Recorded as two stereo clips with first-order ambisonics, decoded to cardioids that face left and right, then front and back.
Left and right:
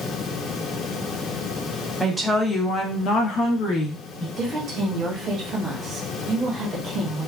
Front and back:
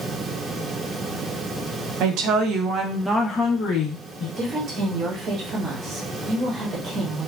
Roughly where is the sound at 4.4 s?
Behind right.